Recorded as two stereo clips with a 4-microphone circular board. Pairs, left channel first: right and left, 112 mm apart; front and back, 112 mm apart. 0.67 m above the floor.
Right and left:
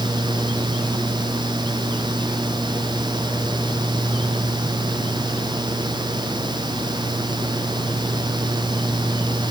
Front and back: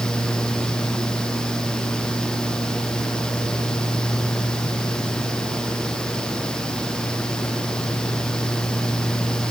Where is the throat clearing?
No throat clearing in this recording.